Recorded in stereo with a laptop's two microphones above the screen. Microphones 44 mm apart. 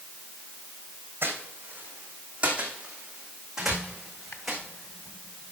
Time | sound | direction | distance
1.2 | footsteps | 50° right (ahead or behind) | 2.5 m
3.6 | a squeak | 70° left (ahead or behind) | 2 m